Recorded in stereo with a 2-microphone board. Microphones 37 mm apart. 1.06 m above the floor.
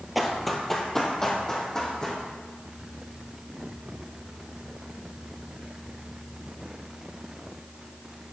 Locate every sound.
0.1 s running footsteps: centre (ahead or behind), 1.2 m; by 2.2 s 20° left (ahead or behind), 3 m